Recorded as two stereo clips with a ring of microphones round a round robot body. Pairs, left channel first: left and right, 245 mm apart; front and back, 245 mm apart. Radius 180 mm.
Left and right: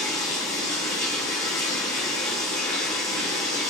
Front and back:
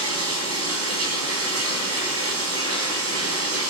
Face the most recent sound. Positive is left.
turn(degrees=170)